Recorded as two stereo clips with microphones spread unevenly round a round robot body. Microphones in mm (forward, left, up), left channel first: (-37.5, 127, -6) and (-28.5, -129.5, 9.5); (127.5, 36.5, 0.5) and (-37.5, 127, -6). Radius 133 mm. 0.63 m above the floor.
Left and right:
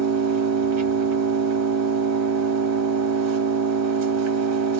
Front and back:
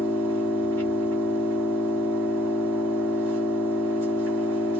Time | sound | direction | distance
0.0 | an engine running | 110° right | 1.2 m